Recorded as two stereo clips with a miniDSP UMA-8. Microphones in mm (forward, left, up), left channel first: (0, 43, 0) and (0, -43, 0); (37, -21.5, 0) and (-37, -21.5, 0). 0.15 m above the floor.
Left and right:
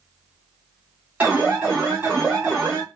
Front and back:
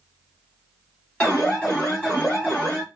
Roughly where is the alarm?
Ahead right.